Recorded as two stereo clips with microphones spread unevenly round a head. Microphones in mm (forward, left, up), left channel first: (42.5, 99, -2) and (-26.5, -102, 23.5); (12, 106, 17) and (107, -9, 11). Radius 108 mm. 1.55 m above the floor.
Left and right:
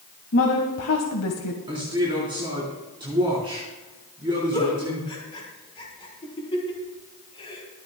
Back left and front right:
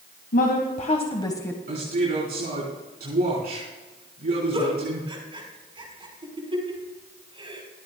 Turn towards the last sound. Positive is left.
turn(degrees=0)